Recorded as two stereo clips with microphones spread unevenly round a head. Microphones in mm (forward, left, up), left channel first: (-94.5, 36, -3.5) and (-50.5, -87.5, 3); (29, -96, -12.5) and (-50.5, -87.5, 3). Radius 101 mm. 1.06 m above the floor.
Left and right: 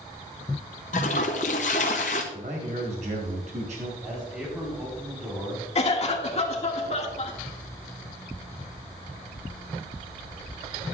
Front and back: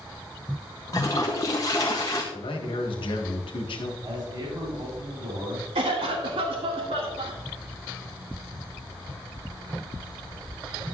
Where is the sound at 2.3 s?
10° right, 1.6 m.